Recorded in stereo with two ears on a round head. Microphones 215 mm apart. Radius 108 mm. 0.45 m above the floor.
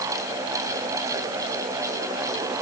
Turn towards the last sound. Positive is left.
No sound to turn to.